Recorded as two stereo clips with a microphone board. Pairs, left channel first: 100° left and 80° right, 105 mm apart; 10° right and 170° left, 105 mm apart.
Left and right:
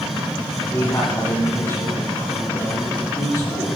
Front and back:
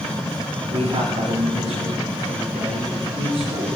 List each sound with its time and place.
0.7 s a man speaking: 165° left, 8.5 m; by 3.8 s 155° left, 9.5 m